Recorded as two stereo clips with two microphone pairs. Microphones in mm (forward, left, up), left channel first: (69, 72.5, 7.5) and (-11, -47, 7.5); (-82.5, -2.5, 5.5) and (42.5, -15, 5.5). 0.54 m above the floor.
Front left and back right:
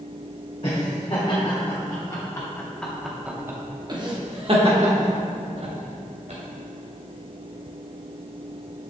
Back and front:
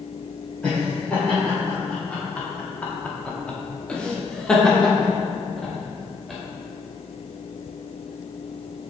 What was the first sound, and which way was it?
Laughter, 95° left.